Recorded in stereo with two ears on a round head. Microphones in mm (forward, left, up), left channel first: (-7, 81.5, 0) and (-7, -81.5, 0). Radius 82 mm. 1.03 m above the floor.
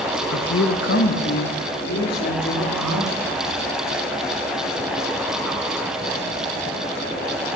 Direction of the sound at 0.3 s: 65° left (ahead or behind).